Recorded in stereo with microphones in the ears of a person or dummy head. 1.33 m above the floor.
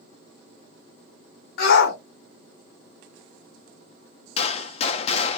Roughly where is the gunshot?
Left.